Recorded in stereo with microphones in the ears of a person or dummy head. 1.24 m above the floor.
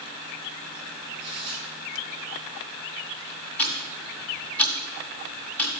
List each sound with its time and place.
1.2 s tearing paper: 25° right (ahead or behind), 4.5 m
3.6 s ticking: 10° left (ahead or behind), 1.6 m